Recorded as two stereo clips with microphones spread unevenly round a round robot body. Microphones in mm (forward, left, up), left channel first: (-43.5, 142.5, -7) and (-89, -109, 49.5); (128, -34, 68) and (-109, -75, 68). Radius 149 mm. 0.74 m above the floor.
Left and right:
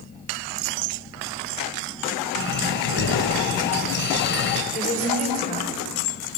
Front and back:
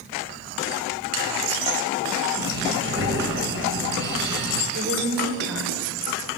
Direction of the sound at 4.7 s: 145° left.